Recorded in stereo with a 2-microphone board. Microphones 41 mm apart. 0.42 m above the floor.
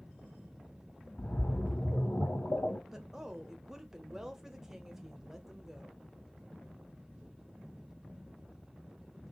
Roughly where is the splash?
Left.